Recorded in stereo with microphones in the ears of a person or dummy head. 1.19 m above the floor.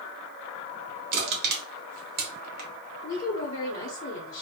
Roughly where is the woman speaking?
Left.